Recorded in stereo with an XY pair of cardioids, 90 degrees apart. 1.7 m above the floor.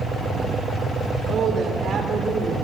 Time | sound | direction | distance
1.3 | a woman speaking | 65° right | 6.5 m